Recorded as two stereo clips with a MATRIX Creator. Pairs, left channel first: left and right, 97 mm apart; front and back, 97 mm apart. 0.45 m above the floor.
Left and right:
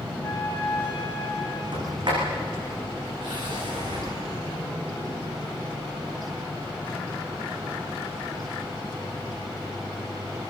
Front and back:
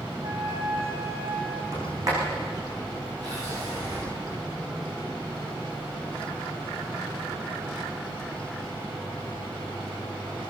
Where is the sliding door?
130° right, 9.5 m.